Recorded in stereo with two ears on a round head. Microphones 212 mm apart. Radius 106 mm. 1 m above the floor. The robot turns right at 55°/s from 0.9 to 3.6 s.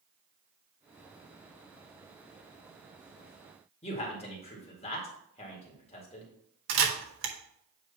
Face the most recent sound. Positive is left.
turn(degrees=-60)  # may be behind; listen again after turning